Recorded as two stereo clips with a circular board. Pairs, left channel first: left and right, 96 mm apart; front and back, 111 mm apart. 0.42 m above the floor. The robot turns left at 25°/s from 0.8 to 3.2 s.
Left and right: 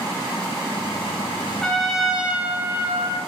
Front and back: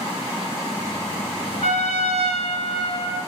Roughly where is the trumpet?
Ahead.